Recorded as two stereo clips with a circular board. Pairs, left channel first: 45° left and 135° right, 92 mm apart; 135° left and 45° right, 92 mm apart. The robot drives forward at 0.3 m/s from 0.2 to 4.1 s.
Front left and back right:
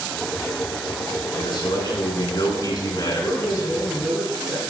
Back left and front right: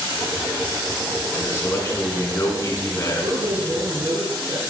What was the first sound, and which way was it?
A man speaking, 75° left.